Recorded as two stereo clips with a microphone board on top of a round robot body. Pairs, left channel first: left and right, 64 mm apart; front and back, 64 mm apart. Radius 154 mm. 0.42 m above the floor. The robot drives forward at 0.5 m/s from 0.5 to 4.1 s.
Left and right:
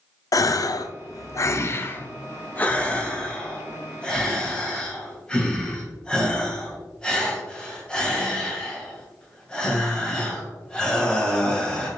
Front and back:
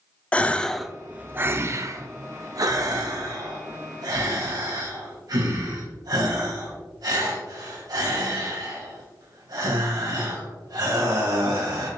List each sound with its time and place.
0.3 s a gasp: 70° left, 0.5 m; by 11.9 s 165° left, 1.7 m